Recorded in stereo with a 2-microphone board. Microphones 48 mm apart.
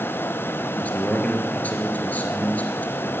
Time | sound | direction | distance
0.8 | a man speaking | 35° left (ahead or behind) | 2 m